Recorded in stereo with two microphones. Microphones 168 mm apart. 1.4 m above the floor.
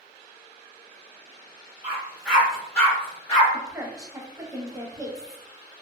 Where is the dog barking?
20° right (ahead or behind), 1.3 m; by 3.4 s 20° left (ahead or behind), 1.4 m.